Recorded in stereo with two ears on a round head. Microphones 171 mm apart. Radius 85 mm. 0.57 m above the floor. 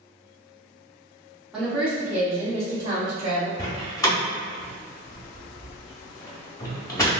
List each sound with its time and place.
1.5 s a woman speaking: centre (ahead or behind), 1.1 m; by 3.5 s 20° right (ahead or behind), 2.5 m
3.6 s a door slam: 15° left (ahead or behind), 0.7 m